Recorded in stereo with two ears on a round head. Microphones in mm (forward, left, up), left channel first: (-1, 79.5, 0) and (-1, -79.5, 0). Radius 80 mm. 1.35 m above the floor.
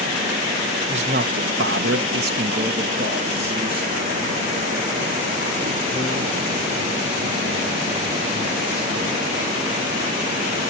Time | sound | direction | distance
0.9 | a man speaking | 35° right (ahead or behind) | 0.8 m